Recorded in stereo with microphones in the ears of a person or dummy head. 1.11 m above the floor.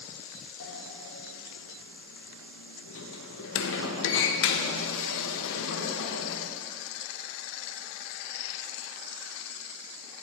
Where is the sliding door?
65° left (ahead or behind), 1.1 m.